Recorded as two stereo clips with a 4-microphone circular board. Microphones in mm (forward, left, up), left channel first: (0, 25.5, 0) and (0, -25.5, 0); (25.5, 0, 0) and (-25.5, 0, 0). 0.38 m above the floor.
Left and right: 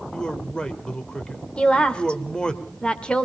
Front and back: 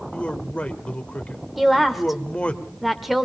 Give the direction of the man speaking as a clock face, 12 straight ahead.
11 o'clock.